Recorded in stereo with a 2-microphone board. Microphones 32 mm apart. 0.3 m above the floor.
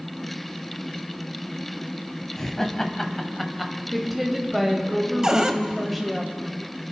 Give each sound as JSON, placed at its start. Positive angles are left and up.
{"t": 2.4, "sound": "laughter", "side_deg": 15, "distance_m": 1.6}
{"t": 3.9, "sound": "a woman speaking", "side_deg": 0, "distance_m": 1.3}
{"t": 5.2, "sound": "a cupboard door", "side_deg": -20, "distance_m": 0.8}